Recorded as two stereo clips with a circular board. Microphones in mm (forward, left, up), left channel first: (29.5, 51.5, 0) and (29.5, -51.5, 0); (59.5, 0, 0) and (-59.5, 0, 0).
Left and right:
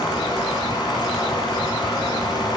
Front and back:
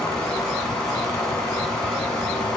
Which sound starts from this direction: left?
Running water, at 0.0 s.